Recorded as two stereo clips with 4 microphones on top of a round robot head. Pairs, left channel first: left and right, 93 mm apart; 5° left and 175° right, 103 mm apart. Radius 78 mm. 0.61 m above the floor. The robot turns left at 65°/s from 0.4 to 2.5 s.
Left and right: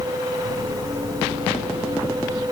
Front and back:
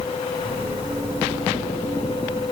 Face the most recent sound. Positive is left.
No sound to turn to.